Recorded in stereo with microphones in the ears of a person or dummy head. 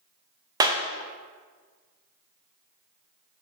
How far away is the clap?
About 0.6 m.